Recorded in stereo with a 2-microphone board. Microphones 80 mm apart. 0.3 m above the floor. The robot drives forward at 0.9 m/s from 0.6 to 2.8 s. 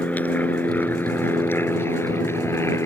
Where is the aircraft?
20° left (ahead or behind); by 2.9 s 35° left (ahead or behind).